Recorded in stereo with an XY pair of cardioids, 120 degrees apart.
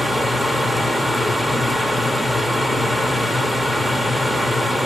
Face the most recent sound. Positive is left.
turn(degrees=0)